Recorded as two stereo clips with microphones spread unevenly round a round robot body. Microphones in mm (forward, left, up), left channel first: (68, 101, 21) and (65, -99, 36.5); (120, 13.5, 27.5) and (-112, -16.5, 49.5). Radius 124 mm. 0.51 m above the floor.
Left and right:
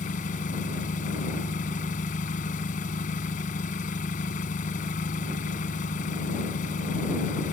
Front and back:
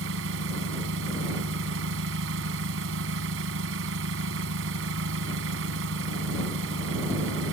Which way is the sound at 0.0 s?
150° left.